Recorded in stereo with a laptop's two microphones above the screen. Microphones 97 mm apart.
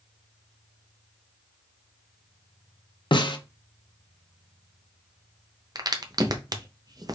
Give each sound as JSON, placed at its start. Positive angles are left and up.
{"t": 3.1, "sound": "a snare drum", "side_deg": 55, "distance_m": 0.6}
{"t": 5.8, "sound": "a crack", "side_deg": -40, "distance_m": 0.7}